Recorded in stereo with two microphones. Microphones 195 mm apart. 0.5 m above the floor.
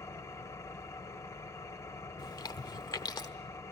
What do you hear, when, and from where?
0.0 s an engine running: 15° left (ahead or behind), 1.0 m
2.2 s chewing: 20° left (ahead or behind), 1.2 m